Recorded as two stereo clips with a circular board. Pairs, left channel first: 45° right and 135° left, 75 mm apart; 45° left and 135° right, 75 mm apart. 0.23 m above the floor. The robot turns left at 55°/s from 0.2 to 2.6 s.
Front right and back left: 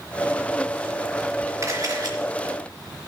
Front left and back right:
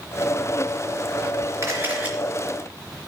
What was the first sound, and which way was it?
A camera shutter, straight behind.